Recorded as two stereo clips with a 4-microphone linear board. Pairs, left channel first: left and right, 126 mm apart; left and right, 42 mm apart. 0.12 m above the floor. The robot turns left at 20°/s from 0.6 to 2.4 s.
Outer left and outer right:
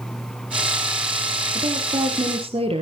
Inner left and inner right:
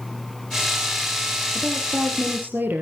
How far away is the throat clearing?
No throat clearing in this recording.